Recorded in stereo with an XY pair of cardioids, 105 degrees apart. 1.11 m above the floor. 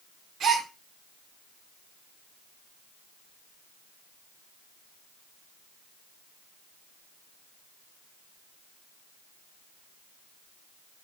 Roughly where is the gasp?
Ahead right.